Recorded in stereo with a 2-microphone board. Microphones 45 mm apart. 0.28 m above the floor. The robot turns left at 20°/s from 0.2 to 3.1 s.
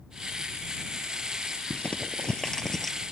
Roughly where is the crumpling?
Left.